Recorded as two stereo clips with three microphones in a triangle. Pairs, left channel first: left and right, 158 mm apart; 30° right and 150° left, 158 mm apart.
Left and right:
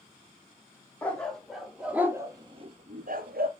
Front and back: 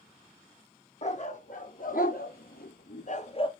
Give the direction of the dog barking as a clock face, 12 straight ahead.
12 o'clock.